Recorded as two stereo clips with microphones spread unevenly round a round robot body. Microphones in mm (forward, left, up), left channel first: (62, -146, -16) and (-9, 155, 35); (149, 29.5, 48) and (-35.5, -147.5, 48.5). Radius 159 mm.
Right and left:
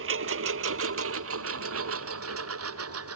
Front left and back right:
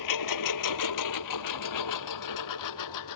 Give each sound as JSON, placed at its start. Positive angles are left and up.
{"t": 0.0, "sound": "a lawn mower", "azimuth_deg": 55}